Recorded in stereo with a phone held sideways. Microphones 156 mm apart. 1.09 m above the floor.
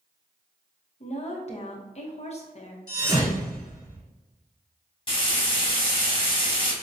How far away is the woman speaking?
About 0.8 m.